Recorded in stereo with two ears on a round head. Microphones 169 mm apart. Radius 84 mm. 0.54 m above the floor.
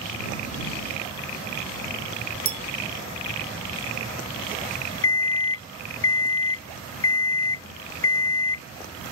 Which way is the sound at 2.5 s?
30° right (ahead or behind).